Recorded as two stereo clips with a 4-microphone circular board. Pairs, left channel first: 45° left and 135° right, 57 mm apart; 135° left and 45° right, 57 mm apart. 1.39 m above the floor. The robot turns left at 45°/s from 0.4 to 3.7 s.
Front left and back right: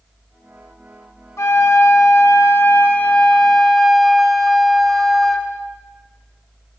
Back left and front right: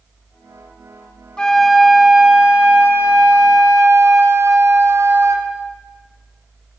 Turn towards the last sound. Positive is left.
turn(degrees=-40)